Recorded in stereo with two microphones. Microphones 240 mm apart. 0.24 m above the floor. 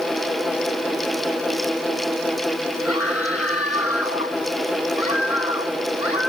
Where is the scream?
80° left; by 6.3 s 70° left (ahead or behind).